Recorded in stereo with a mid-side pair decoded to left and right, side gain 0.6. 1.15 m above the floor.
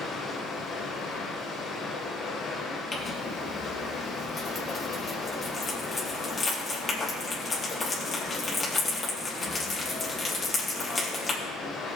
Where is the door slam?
I don't hear a door slam.